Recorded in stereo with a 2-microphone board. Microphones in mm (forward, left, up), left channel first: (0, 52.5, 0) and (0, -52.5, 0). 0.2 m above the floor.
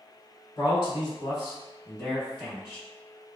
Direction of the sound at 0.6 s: 40° left (ahead or behind).